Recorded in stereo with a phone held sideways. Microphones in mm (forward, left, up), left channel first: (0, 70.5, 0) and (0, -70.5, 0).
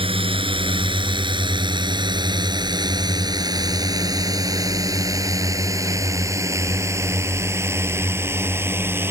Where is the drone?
40° right (ahead or behind); by 9.1 s 15° right (ahead or behind).